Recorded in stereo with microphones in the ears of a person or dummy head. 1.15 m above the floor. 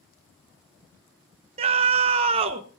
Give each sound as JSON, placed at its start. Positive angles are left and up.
{"t": 1.6, "sound": "a scream", "side_deg": -35, "distance_m": 1.2}